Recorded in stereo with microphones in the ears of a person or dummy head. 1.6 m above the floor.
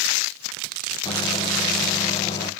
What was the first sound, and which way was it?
A microwave, 25° left (ahead or behind).